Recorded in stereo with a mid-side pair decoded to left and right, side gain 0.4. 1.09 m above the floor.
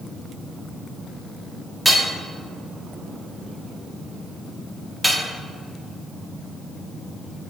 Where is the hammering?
5° right, 1.6 m.